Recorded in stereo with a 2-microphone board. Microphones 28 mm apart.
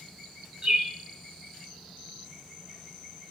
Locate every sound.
0.6 s a bird: 30° right (ahead or behind), 0.5 m